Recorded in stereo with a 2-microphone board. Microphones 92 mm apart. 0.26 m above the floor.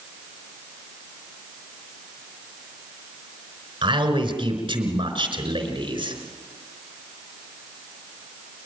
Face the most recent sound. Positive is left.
turn(degrees=-70)  # may be behind; listen again after turning